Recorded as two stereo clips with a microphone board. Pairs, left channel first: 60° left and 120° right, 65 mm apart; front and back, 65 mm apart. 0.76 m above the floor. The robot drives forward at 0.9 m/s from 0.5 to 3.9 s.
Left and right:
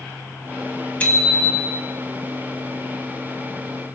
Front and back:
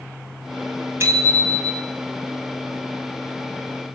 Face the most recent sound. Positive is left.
turn(degrees=150)